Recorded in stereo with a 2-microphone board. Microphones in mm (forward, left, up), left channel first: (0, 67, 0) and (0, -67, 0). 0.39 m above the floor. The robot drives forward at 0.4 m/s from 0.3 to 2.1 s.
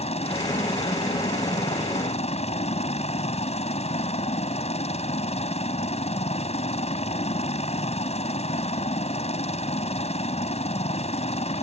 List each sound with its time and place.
0.0 s a helicopter: 50° left (ahead or behind)